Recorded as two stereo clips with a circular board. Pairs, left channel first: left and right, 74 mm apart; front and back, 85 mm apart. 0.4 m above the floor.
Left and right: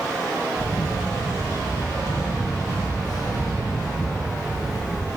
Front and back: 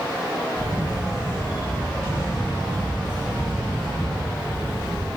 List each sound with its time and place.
0.6 s a camera shutter: 105° left, 3 m